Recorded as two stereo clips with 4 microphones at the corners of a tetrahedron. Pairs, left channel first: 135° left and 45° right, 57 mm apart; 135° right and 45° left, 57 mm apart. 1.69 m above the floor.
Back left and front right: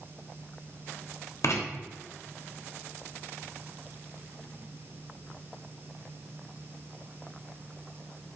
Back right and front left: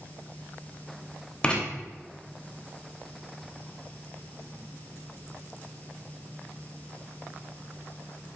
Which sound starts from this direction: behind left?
Writing, at 1.4 s.